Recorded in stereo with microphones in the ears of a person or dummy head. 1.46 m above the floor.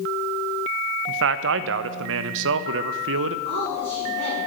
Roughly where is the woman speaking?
Right.